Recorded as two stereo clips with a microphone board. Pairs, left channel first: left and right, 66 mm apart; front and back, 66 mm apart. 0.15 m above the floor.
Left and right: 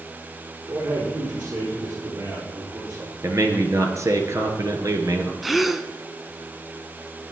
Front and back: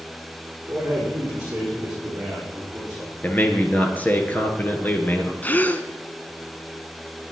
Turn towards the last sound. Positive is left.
turn(degrees=-5)